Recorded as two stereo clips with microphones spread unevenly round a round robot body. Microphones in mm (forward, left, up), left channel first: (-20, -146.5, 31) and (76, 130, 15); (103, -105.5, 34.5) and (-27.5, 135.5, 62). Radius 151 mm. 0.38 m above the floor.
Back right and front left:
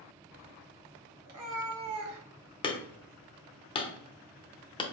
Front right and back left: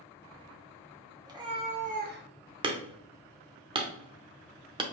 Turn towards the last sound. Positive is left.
turn(degrees=-175)